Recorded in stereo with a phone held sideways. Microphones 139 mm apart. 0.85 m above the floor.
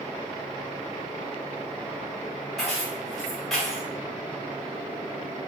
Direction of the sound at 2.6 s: 5° left (ahead or behind).